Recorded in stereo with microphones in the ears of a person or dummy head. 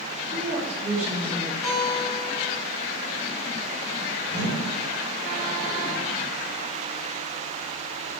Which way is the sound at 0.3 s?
35° right (ahead or behind).